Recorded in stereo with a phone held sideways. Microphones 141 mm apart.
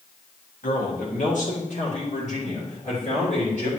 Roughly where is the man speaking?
Left.